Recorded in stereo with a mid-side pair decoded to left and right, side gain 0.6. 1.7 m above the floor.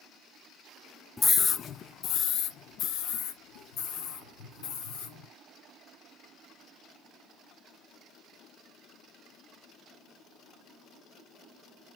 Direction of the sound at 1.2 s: 20° left.